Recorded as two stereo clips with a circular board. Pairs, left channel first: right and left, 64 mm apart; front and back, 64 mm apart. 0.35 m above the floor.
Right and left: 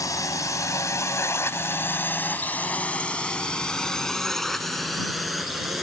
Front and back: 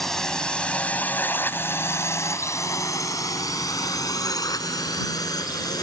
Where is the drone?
85° right; by 5.8 s 5° left.